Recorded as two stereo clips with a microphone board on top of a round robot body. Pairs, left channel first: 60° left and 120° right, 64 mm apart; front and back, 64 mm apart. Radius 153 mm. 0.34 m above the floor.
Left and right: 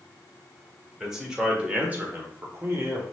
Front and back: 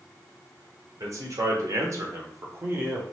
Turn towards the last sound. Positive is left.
turn(degrees=-135)